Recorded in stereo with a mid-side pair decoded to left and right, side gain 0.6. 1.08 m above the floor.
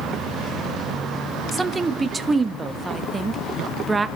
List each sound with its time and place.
1.5 s a woman speaking: 25° right, 1.3 m